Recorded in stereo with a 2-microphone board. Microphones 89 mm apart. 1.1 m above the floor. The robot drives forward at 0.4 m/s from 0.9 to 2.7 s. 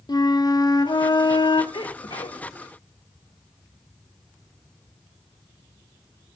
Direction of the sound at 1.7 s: 75° left (ahead or behind).